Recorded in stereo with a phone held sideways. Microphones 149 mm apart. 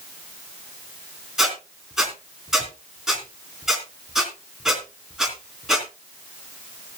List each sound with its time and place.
1.4 s a squeak: 5° right (ahead or behind), 3.5 m